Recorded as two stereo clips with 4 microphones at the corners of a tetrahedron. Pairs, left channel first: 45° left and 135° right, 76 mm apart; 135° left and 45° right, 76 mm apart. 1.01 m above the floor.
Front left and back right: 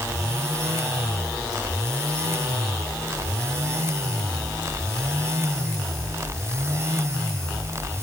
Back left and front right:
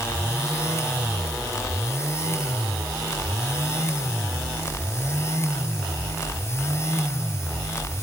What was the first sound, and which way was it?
Only background noise.